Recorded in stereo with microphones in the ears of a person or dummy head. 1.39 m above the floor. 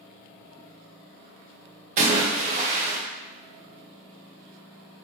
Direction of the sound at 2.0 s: 45° right (ahead or behind).